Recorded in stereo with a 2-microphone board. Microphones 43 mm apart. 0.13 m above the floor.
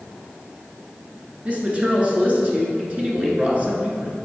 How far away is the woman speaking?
About 1.6 m.